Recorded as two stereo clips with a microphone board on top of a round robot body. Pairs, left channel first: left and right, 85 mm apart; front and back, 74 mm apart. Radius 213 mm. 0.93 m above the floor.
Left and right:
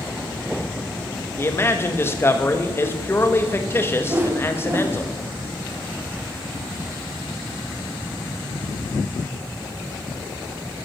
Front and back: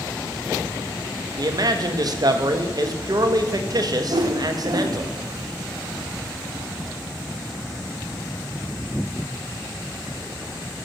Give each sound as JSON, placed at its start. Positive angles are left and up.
{"t": 1.4, "sound": "a man speaking", "azimuth_deg": 150, "distance_m": 1.9}
{"t": 4.1, "sound": "a whoosh", "azimuth_deg": -155, "distance_m": 2.0}